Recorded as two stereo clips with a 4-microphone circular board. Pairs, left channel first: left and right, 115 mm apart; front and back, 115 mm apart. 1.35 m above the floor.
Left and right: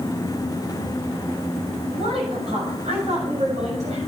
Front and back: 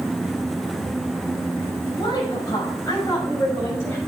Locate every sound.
1.9 s a woman speaking: 55° right, 6.5 m; by 4.0 s 70° right, 6.5 m